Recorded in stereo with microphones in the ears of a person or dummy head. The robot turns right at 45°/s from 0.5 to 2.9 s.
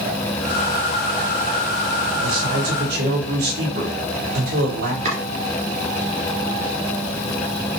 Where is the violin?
No violin in this recording.